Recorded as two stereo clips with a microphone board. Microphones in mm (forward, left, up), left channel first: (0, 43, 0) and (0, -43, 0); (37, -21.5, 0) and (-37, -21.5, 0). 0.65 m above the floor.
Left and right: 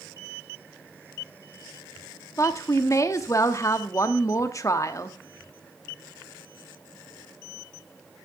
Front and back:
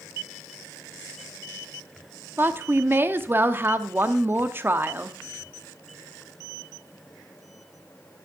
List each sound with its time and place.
2.4 s a woman speaking: 130° left, 0.8 m